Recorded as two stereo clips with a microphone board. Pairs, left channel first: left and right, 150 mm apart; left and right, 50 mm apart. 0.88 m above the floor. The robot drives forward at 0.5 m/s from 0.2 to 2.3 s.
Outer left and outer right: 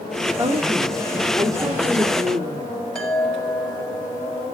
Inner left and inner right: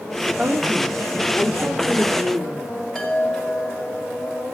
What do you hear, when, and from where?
0.4 s a woman speaking: 30° right (ahead or behind), 2.5 m; by 2.7 s 25° right (ahead or behind), 3.5 m
3.0 s a chime: 5° left (ahead or behind), 7 m